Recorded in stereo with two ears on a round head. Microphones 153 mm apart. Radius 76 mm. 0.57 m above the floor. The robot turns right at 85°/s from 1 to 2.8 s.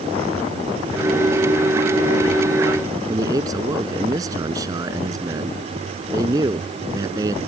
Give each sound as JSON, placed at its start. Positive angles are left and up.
{"t": 3.1, "sound": "a man speaking", "side_deg": -20}